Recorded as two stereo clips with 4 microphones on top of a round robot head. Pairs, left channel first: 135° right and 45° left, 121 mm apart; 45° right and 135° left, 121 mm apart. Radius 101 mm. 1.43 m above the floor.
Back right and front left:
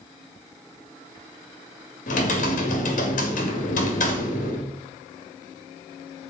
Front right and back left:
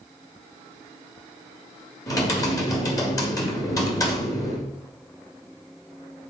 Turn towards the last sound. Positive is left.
turn(degrees=-110)